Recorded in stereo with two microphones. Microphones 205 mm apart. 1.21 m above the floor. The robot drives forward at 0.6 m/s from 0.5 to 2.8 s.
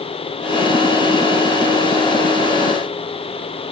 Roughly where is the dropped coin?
I don't hear a dropped coin.